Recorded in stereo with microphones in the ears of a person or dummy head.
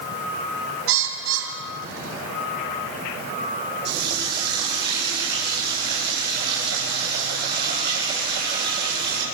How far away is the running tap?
About 8 m.